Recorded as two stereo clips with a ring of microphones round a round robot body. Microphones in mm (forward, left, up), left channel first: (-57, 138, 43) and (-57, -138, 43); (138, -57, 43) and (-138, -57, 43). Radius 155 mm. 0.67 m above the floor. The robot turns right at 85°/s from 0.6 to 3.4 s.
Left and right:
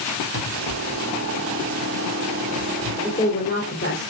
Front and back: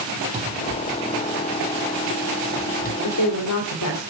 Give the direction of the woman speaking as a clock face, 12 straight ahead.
12 o'clock.